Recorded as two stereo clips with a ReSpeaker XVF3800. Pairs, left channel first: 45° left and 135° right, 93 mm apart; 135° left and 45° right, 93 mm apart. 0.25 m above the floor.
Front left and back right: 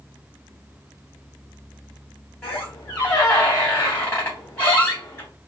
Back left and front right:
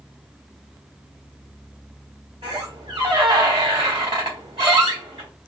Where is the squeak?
20° right, 3 m.